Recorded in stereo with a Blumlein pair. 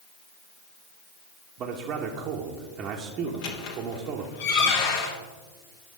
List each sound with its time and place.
1.6 s a man speaking: 35° right, 1.0 m
3.3 s a squeak: 50° left, 1.4 m